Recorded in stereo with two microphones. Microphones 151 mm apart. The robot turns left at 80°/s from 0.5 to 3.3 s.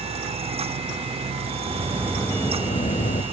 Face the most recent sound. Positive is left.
turn(degrees=90)